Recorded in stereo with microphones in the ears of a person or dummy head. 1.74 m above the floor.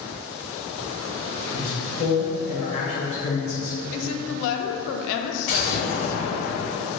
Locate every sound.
1.5 s a man speaking: 35° left (ahead or behind), 1.3 m
3.9 s a woman speaking: 70° left (ahead or behind), 0.5 m
5.5 s an explosion: 45° left (ahead or behind), 1.5 m